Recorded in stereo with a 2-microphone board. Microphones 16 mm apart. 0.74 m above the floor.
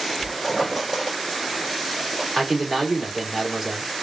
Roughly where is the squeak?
Centre.